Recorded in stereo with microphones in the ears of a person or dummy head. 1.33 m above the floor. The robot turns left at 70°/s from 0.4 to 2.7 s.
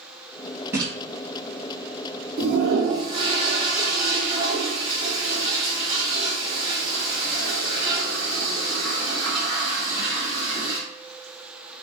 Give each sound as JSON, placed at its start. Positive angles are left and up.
{"t": 0.7, "sound": "a splash", "side_deg": -15, "distance_m": 0.9}
{"t": 2.4, "sound": "a toilet flushing", "side_deg": -60, "distance_m": 1.6}